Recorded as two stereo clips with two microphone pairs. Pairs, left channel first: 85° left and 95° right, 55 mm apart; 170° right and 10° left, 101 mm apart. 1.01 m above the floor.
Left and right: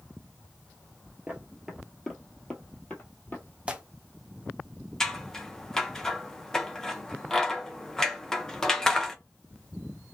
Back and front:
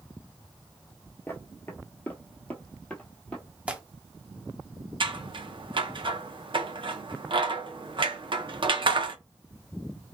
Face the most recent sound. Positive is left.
turn(degrees=15)